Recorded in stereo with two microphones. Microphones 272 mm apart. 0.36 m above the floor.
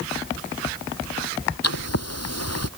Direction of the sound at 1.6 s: 65° left (ahead or behind).